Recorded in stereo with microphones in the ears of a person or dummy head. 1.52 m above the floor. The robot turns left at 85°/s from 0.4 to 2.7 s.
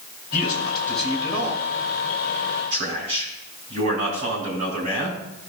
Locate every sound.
0.3 s a man speaking: 45° left, 3 m; by 5.1 s 150° right, 3 m